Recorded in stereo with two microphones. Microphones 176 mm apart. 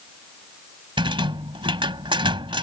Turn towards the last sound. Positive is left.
turn(degrees=-30)  # may be behind; listen again after turning